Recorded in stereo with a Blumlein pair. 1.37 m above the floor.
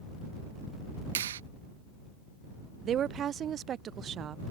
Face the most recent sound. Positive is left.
turn(degrees=-25)